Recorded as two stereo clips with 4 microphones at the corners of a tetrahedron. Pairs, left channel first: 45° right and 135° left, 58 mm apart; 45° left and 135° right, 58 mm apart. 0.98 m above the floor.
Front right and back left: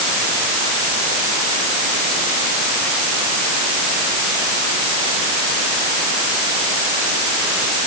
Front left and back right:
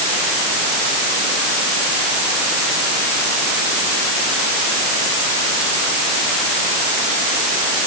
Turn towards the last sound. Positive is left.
No sound to turn to.